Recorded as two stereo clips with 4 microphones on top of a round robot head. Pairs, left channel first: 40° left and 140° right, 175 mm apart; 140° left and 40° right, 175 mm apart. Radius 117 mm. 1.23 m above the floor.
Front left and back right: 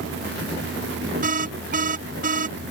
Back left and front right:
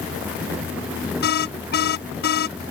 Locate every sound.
1.2 s an alarm: 175° left